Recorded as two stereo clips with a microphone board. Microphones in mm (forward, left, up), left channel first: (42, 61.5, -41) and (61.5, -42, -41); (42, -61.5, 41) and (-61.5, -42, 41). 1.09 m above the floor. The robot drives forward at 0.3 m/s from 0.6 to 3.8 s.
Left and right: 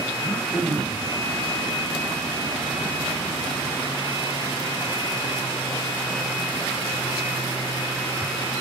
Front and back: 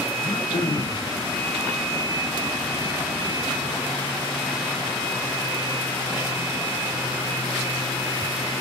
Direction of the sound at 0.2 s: 5° left.